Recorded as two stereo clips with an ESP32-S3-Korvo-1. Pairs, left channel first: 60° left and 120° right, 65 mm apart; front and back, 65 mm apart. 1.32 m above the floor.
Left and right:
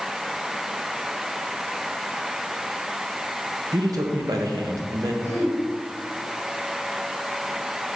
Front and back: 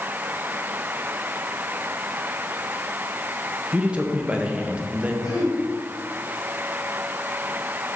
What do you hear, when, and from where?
3.7 s a man speaking: 105° right, 1.4 m
5.2 s throat clearing: 10° left, 4 m